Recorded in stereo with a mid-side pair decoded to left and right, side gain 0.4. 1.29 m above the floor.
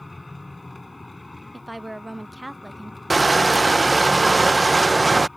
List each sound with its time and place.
0.0 s a machine running: 20° left
1.5 s a woman speaking: 5° right
3.1 s crushing: 15° right